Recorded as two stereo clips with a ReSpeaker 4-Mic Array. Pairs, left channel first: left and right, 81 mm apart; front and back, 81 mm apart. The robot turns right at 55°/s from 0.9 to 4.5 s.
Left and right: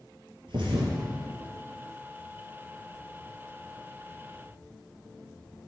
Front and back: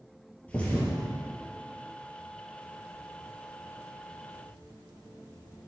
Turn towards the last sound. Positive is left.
turn(degrees=125)